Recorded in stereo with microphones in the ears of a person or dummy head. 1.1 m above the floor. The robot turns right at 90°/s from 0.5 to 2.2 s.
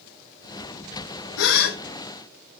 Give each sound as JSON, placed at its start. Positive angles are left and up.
{"t": 1.4, "sound": "a gasp", "azimuth_deg": 90, "distance_m": 1.7}